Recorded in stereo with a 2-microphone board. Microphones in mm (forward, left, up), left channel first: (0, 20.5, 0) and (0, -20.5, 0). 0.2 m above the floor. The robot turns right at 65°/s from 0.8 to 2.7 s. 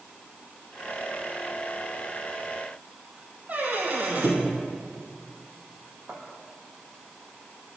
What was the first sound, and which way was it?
A squeak, 40° right (ahead or behind).